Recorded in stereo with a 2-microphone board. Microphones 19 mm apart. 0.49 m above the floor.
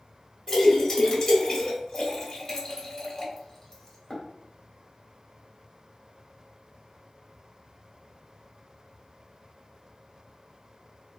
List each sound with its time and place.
0.5 s a splash: 35° left (ahead or behind), 1.8 m